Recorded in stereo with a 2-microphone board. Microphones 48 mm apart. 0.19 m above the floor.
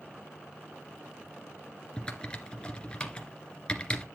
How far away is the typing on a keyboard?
About 1.8 m.